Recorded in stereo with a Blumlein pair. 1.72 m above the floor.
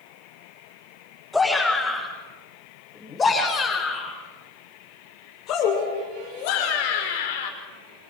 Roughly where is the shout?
Ahead.